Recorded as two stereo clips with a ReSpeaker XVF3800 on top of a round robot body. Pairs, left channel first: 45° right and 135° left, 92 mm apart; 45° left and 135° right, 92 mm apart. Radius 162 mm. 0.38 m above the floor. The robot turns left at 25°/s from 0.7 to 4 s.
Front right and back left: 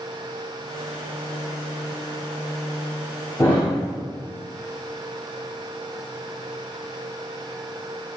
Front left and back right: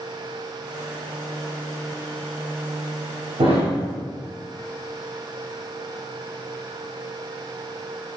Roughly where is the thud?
Right.